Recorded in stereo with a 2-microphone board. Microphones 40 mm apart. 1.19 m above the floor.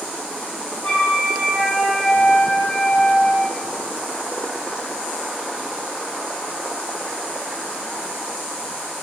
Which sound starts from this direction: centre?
A flute, at 0.8 s.